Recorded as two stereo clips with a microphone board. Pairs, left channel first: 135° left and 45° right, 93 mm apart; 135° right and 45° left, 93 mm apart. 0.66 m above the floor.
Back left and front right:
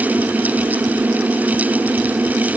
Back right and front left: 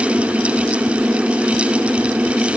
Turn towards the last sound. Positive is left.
No sound to turn to.